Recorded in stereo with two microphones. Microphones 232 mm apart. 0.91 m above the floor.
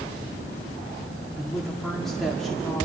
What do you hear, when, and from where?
1.4 s a woman speaking: centre (ahead or behind), 1.8 m